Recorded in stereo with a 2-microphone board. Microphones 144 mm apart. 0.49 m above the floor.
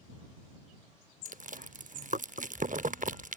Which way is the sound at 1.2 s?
70° right (ahead or behind).